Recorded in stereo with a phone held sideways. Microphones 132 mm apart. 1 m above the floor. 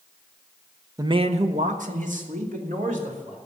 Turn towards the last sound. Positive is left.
turn(degrees=-80)